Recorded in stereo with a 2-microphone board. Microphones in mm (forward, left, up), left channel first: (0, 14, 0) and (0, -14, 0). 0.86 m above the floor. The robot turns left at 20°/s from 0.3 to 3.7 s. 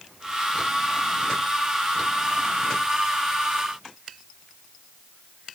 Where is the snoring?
No snoring in this recording.